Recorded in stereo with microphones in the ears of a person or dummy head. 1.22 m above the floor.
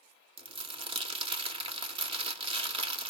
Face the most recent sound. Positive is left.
turn(degrees=-30)  # may be behind; listen again after turning